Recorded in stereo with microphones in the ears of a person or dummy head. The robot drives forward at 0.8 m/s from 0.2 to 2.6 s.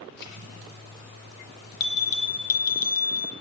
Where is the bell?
65° left (ahead or behind), 3.5 m; by 3.3 s 70° left (ahead or behind), 3 m.